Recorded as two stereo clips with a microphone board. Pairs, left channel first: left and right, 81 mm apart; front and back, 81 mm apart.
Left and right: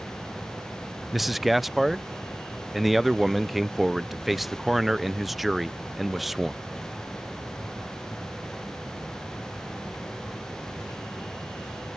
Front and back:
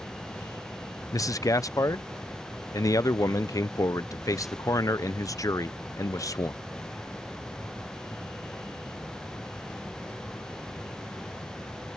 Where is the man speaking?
Straight ahead.